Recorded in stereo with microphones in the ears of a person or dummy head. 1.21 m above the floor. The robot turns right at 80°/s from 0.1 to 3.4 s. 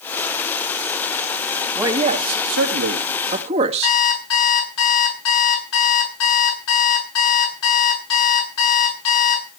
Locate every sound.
1.8 s a man speaking: 165° right, 2.5 m; by 4.0 s 35° right, 2.5 m
3.8 s an alarm clock: 85° left, 7.5 m